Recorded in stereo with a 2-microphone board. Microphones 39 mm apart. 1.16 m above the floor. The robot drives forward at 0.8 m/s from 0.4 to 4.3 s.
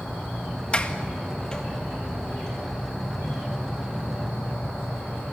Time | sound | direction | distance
0.7 | a sliding door | 25° left (ahead or behind) | 1.6 m